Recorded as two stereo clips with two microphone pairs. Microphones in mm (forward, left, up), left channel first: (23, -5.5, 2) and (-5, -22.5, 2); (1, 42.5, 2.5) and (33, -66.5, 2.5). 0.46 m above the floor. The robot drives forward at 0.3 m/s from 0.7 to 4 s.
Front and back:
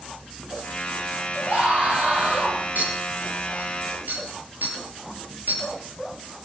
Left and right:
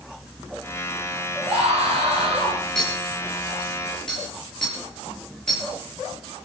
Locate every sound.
1.4 s a scream: 100° right, 8.5 m
2.8 s a clink: 170° right, 6 m